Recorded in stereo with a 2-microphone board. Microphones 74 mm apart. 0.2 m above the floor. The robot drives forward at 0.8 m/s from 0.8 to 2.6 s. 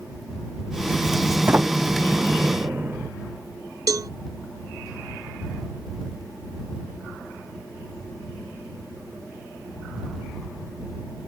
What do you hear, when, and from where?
1.5 s a sliding door: 25° right (ahead or behind)
3.9 s a cowbell: 55° right (ahead or behind)